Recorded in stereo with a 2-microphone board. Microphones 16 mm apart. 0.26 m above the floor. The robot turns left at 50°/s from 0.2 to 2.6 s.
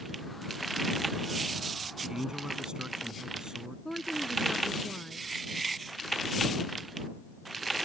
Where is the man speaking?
35° right (ahead or behind); by 3.8 s 55° right (ahead or behind).